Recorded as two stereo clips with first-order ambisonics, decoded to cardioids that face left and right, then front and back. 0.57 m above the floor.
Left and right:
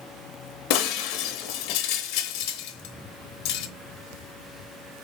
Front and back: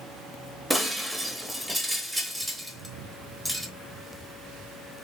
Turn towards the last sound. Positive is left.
turn(degrees=90)